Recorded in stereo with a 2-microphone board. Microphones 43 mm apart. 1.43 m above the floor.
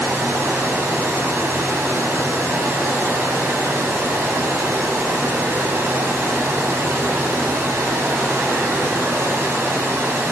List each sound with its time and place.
0.0 s running water: 65° right (ahead or behind), 7.5 m